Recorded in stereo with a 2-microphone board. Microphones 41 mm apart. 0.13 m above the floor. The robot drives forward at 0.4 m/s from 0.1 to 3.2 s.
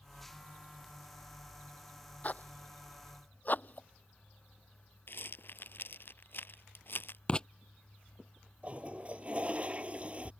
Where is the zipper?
40° left (ahead or behind); by 3.9 s 45° left (ahead or behind).